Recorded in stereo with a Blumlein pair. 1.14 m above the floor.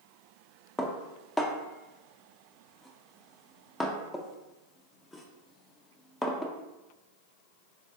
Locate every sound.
0.8 s dishes clattering: 10° left, 0.5 m